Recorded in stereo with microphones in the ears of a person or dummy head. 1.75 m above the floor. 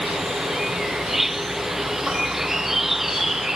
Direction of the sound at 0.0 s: Centre (ahead or behind).